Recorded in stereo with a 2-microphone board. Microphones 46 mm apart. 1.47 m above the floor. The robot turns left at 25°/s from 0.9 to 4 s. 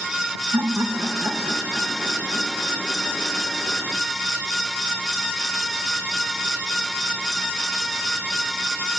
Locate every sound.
0.5 s laughter: 85° right, 1.9 m; by 2.8 s 135° right, 1.9 m